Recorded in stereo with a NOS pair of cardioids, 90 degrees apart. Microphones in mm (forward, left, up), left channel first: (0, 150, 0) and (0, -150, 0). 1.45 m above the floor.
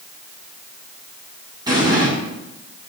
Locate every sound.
1.7 s an explosion: 15° right, 6.5 m